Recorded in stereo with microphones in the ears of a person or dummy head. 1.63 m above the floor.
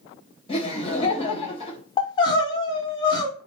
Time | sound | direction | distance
0.5 | laughter | 35° left (ahead or behind) | 2 m
2.0 | crying | 30° left (ahead or behind) | 1.0 m